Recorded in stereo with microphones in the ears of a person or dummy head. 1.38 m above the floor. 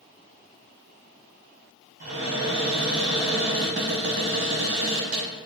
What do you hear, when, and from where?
2.0 s a cupboard door: 70° right (ahead or behind), 1.1 m